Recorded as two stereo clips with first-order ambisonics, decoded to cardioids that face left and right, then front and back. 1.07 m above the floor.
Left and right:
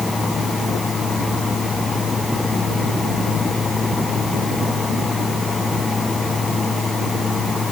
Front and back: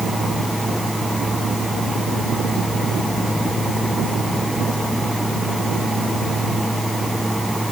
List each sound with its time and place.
Only background noise.